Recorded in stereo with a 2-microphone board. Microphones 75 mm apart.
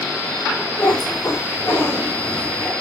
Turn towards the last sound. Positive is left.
turn(degrees=50)  # may be behind; listen again after turning